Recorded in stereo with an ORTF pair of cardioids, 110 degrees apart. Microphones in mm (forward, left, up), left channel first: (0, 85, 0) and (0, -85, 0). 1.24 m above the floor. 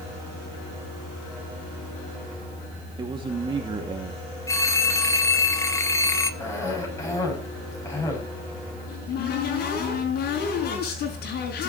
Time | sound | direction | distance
3.0 | a man speaking | 25° right | 2.5 m
4.5 | a phone ringing | 20° left | 1.6 m
6.4 | a cough | 15° left | 8.5 m
8.9 | a cupboard door | 65° left | 5.5 m